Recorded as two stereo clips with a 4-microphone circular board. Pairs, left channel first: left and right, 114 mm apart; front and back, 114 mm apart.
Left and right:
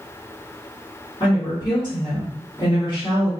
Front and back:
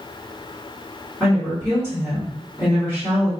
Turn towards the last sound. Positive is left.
turn(degrees=110)